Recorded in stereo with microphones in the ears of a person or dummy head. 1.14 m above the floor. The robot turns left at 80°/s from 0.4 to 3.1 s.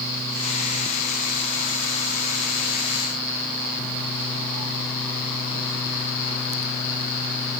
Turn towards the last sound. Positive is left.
No sound to turn to.